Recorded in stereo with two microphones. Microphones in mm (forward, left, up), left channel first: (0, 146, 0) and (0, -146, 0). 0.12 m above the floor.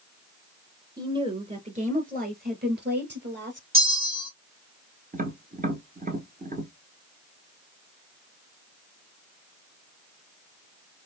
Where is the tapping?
30° right (ahead or behind), 1.0 m.